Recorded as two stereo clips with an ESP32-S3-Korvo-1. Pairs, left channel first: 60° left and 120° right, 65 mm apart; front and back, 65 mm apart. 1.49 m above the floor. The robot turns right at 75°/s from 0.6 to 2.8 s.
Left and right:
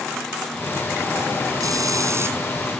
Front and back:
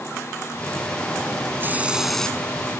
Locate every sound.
1.6 s a hiss: 130° right; by 2.4 s 70° right